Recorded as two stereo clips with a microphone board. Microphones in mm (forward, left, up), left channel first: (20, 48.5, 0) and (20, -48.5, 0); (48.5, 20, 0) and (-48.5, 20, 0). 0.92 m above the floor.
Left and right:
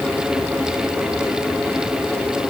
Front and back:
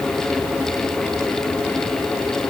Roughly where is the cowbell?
I don't hear a cowbell.